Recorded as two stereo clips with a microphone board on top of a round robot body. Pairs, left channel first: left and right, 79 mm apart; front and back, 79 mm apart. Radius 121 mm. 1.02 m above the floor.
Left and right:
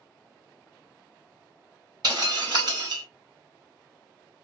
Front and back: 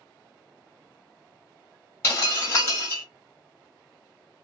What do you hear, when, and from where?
2.0 s breaking glass: 60° right, 1.7 m